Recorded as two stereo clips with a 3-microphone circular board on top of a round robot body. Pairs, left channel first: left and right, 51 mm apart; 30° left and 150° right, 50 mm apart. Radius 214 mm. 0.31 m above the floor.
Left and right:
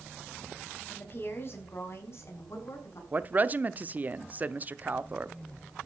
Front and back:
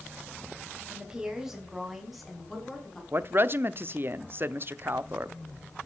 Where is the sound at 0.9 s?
140° left, 4 m; by 3.0 s 115° left, 6.5 m.